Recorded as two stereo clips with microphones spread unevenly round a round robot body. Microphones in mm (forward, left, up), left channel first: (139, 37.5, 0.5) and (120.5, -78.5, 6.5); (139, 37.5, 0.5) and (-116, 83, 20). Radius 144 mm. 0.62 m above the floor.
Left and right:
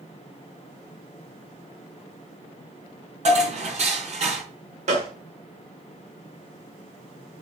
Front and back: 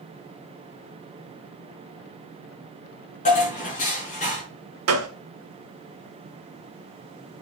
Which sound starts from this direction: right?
Dishes clattering, at 3.2 s.